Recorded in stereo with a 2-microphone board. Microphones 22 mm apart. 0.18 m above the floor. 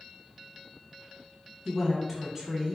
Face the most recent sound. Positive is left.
turn(degrees=-10)  # may be behind; listen again after turning